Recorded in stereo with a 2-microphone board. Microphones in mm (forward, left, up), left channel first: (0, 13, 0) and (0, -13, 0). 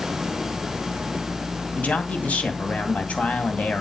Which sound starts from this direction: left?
A man speaking, at 1.8 s.